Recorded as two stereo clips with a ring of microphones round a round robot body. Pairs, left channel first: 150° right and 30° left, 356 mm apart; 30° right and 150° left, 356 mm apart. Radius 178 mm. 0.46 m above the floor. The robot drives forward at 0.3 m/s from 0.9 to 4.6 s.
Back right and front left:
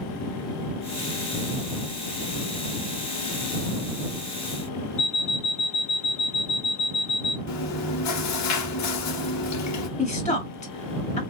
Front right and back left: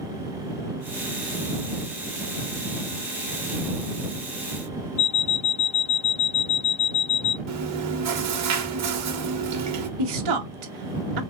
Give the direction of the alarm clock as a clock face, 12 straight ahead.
3 o'clock.